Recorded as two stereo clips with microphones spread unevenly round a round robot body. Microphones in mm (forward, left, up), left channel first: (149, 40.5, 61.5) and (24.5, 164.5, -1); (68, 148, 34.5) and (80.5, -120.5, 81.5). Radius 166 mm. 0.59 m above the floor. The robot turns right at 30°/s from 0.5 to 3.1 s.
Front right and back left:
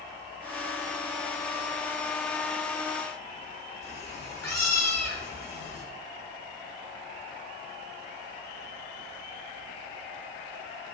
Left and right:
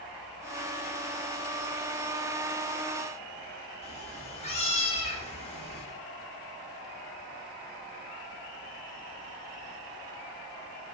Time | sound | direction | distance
3.8 | a cat meowing | 25° left | 1.5 m